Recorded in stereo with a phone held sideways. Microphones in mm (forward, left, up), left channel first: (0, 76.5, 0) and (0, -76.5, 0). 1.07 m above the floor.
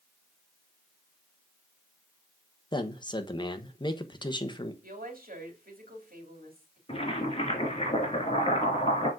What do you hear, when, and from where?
2.7 s a man speaking: 30° left (ahead or behind), 1.1 m
4.8 s a woman speaking: 70° right (ahead or behind), 3 m
6.9 s boiling: 40° left (ahead or behind), 2.5 m